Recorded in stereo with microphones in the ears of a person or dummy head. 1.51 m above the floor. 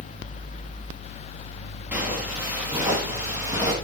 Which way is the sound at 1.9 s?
10° right (ahead or behind).